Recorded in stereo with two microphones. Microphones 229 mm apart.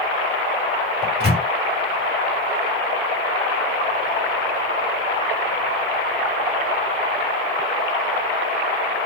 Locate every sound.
1.0 s a microwave: 25° left (ahead or behind), 1.3 m